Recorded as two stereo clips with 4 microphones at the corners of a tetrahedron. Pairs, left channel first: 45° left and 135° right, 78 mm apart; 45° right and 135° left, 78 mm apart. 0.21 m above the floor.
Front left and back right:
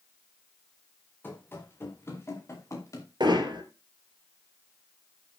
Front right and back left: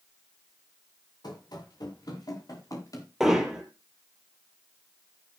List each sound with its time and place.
1.2 s running footsteps: 15° right, 6.5 m; by 3.1 s straight ahead, 5.5 m
3.2 s hammering: 140° right, 3.5 m